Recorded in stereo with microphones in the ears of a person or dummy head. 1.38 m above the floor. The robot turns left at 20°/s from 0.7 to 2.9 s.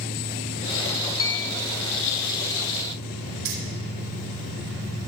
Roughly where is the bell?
Centre.